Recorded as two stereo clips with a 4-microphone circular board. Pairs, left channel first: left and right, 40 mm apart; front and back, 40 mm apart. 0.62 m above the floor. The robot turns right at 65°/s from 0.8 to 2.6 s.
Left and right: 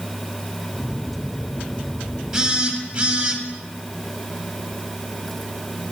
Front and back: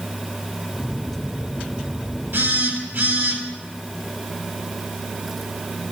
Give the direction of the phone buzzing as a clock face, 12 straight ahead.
6 o'clock.